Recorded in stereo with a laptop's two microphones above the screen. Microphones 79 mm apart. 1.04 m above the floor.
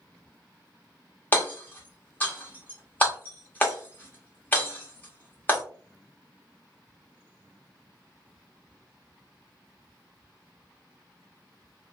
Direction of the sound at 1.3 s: 25° left (ahead or behind).